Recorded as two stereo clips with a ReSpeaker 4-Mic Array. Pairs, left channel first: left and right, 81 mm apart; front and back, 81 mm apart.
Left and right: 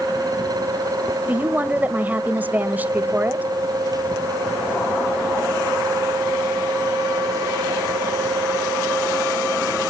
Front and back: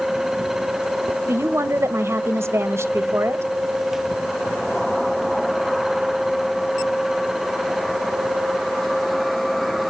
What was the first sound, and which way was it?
A woman speaking, 145° right.